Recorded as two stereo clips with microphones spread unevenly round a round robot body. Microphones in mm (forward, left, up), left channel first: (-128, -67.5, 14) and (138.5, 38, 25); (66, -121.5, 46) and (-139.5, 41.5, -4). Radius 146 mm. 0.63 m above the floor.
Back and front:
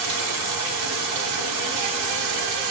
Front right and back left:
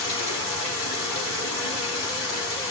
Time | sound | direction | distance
0.0 | running water | 5° right | 4 m